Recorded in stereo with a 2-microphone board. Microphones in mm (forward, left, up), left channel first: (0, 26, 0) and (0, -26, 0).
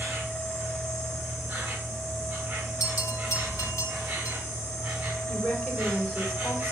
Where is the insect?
25° right (ahead or behind), 6 m.